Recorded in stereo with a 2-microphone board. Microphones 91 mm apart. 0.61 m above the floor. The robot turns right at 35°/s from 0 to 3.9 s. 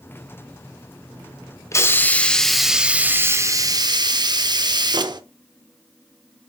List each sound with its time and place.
1.7 s a hiss: 150° left, 0.5 m; by 5.2 s 130° right, 0.5 m